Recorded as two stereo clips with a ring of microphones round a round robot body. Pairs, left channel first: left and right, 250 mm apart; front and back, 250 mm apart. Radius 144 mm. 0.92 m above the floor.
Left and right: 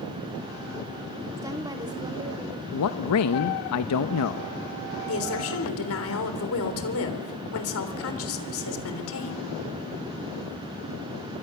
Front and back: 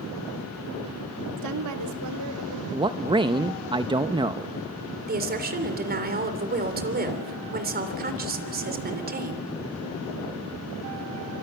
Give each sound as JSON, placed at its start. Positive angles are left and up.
{"t": 1.4, "sound": "a woman speaking", "azimuth_deg": -170, "distance_m": 1.6}
{"t": 2.7, "sound": "a man speaking", "azimuth_deg": 110, "distance_m": 0.8}
{"t": 5.1, "sound": "a woman speaking", "azimuth_deg": 130, "distance_m": 3.5}